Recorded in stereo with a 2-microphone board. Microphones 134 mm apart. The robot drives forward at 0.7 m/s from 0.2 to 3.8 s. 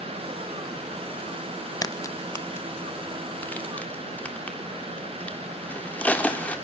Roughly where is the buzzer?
I don't hear a buzzer.